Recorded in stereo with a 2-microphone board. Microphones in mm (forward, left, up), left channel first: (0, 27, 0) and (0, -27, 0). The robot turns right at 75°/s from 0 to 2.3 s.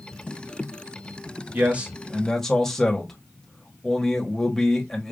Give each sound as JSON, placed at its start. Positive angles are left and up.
{"t": 1.5, "sound": "a man speaking", "azimuth_deg": -45, "distance_m": 1.1}